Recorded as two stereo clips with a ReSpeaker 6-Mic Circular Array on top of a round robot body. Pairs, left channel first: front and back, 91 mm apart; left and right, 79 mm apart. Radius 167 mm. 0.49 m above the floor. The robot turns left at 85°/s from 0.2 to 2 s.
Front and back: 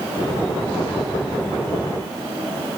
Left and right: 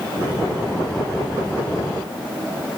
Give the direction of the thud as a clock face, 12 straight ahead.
I don't hear a thud.